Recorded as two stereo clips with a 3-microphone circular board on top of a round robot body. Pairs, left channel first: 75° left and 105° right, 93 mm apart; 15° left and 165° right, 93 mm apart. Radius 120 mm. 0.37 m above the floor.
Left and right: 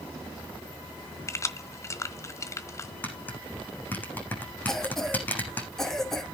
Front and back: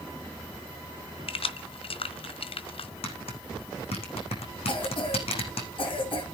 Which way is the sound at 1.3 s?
15° left.